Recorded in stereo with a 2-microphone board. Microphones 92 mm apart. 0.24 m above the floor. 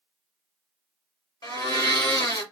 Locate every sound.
1.4 s a blender: 50° left (ahead or behind), 1.3 m